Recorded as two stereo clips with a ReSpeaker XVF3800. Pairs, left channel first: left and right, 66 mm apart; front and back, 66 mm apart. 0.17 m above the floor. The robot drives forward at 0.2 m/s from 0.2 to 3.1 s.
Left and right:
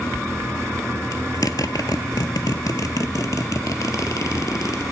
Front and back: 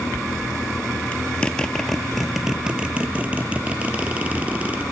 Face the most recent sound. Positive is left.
turn(degrees=115)